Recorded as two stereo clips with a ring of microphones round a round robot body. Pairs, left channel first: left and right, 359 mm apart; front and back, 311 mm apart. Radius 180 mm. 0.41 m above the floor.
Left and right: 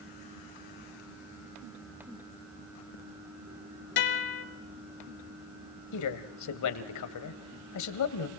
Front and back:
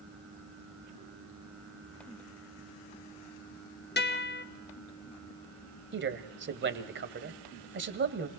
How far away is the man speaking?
About 2 m.